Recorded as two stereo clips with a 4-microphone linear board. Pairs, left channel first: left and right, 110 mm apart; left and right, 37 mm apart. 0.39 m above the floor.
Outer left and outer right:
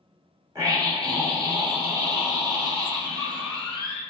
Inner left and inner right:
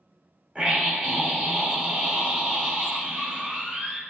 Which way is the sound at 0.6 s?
35° right (ahead or behind).